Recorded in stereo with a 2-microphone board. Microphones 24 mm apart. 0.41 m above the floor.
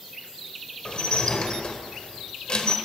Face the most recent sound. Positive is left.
turn(degrees=40)  # may be behind; listen again after turning